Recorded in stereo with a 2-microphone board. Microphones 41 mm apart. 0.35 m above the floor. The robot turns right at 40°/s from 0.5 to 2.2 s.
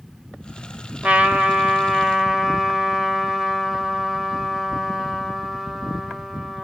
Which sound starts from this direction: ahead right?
A trumpet, at 1.0 s.